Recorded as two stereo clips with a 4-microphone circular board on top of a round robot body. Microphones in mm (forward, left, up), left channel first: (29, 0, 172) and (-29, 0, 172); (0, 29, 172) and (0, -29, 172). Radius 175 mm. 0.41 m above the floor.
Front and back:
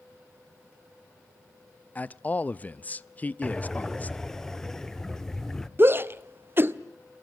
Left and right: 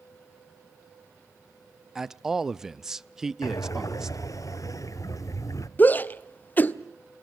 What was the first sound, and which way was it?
A man speaking, 15° right.